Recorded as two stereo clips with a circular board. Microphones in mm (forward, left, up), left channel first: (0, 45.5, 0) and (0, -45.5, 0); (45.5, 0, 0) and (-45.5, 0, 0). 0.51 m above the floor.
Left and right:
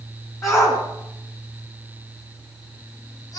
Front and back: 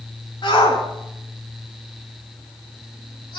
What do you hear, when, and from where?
0.4 s a shout: 35° left, 5 m; by 3.4 s 40° left, 7 m